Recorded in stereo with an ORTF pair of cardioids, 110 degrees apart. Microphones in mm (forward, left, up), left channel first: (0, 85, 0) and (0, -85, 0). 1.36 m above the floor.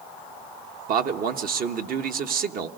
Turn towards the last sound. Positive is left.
turn(degrees=-60)